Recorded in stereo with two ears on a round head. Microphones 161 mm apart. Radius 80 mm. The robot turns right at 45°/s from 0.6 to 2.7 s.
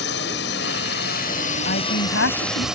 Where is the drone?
90° left; by 2.8 s 175° right.